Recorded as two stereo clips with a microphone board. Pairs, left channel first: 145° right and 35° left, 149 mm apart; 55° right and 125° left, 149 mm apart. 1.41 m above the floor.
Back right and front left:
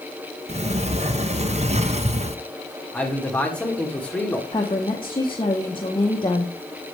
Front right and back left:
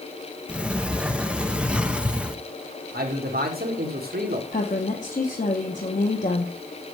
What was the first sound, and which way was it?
A sliding door, 45° left.